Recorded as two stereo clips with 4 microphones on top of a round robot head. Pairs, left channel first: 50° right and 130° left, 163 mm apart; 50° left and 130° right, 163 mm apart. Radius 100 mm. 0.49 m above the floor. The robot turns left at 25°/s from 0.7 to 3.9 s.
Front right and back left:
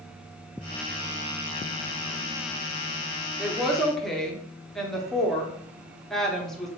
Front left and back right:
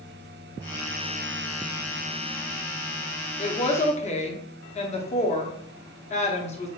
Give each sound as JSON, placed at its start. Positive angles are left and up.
{"t": 3.4, "sound": "a woman speaking", "azimuth_deg": 50, "distance_m": 0.9}